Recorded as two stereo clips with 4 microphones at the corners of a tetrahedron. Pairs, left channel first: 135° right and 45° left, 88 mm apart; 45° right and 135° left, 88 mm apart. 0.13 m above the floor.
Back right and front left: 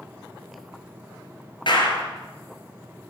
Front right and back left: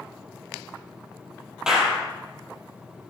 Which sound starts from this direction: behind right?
A clap, at 1.7 s.